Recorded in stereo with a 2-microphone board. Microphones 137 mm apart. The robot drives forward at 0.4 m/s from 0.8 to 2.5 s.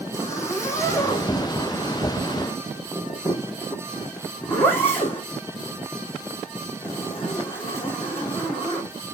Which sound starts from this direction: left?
A zipper, at 0.1 s.